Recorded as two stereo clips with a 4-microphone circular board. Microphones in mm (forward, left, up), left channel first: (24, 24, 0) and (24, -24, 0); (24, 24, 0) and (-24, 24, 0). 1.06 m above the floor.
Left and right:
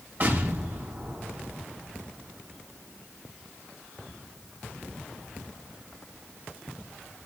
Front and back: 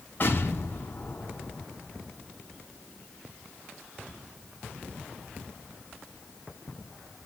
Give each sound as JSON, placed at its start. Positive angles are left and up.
{"t": 0.2, "sound": "an explosion", "azimuth_deg": -45, "distance_m": 6.0}